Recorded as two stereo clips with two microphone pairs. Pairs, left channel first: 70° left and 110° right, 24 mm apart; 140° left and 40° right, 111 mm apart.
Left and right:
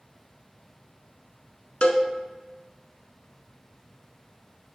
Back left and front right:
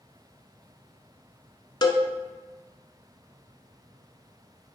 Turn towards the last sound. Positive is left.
turn(degrees=85)